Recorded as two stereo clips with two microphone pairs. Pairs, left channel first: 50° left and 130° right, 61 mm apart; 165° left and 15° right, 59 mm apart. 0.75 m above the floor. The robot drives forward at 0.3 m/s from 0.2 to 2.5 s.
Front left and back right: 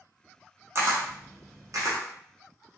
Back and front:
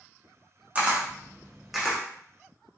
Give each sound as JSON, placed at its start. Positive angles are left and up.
{"t": 0.8, "sound": "a camera shutter", "azimuth_deg": -85, "distance_m": 0.9}